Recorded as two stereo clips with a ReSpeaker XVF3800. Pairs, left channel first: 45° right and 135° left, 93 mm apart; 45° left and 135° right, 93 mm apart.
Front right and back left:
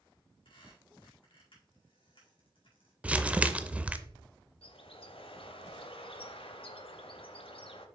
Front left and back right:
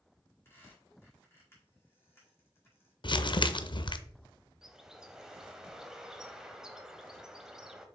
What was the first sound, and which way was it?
A squeak, 20° right.